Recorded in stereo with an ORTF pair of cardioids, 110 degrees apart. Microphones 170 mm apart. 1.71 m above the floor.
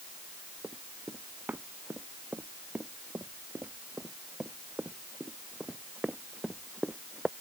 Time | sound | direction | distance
0.6 | running footsteps | 10° right | ?